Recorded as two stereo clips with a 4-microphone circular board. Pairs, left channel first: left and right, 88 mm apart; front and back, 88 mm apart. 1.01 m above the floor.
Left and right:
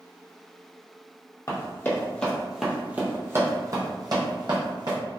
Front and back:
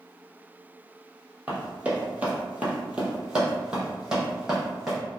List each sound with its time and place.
1.5 s running footsteps: 115° left, 1.3 m; by 5.0 s 95° right, 2 m